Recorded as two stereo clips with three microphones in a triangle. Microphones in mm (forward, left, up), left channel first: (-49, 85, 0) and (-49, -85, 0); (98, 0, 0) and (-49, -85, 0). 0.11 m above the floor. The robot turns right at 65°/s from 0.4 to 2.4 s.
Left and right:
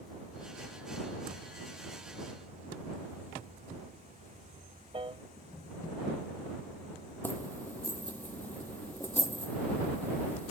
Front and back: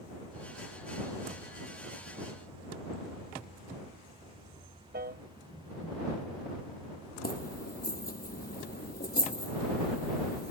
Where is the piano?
150° right.